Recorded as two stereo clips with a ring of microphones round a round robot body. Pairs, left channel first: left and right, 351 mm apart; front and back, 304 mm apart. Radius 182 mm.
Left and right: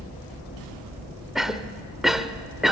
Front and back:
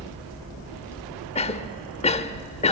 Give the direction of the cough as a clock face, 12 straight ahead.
12 o'clock.